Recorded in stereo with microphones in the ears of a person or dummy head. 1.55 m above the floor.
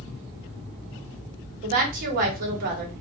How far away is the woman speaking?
About 1.2 m.